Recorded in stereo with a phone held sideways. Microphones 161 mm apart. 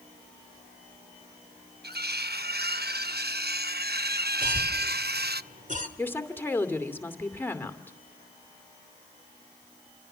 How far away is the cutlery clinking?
About 0.7 m.